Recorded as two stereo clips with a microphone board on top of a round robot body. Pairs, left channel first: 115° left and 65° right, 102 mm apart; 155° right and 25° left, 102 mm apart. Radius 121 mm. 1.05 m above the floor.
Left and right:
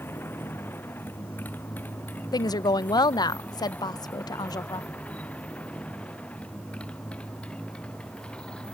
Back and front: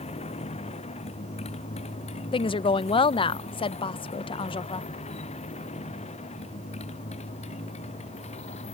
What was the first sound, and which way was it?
A motorcycle, 175° right.